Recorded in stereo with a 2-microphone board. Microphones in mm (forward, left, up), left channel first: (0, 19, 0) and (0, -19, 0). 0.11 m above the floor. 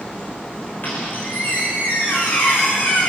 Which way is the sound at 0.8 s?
50° left (ahead or behind).